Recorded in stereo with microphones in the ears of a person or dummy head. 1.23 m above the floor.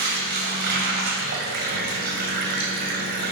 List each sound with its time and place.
0.0 s running water: 50° right (ahead or behind), 1.8 m